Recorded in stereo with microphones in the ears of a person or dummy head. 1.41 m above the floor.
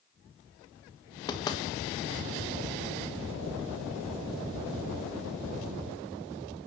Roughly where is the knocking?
Left.